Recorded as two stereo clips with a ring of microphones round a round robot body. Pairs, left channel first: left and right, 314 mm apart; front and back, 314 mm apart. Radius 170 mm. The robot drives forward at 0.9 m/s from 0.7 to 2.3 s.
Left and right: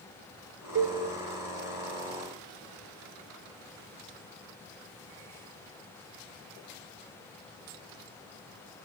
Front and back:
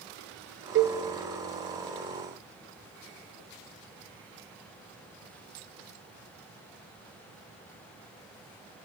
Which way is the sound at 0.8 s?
135° right.